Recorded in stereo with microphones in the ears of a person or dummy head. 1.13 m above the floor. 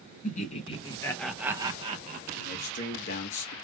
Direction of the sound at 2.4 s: 55° left (ahead or behind).